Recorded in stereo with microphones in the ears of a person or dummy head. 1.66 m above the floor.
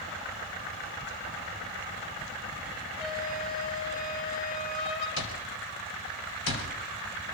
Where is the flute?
45° left (ahead or behind), 8 m.